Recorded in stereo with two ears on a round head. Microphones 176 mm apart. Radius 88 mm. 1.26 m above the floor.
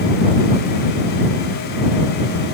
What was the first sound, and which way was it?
Only background noise.